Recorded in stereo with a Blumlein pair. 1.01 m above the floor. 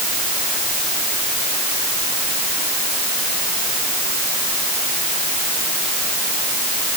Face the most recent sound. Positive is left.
No sound to turn to.